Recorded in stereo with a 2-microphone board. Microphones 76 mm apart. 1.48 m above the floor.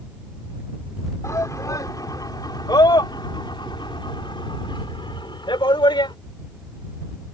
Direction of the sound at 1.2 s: 40° left (ahead or behind).